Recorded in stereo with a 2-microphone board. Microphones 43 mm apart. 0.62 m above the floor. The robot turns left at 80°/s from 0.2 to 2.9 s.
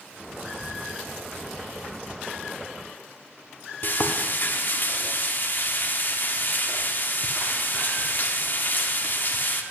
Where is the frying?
45° left (ahead or behind), 0.5 m.